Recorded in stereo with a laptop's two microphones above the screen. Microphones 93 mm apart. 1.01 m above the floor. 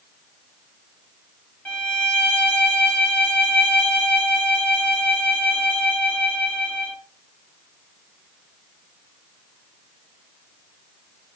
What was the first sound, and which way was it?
A violin, 15° left (ahead or behind).